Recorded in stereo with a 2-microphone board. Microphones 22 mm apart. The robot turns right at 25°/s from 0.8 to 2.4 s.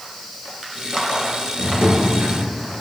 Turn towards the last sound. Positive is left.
turn(degrees=-80)